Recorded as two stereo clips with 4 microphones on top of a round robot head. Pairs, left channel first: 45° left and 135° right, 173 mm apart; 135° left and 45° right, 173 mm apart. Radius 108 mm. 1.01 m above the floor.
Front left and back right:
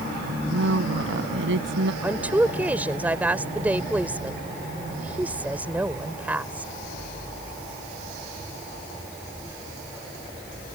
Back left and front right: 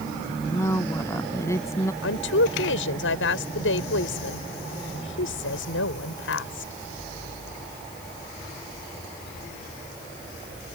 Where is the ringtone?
I don't hear a ringtone.